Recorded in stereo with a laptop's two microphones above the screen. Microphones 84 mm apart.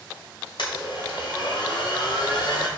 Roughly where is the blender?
Left.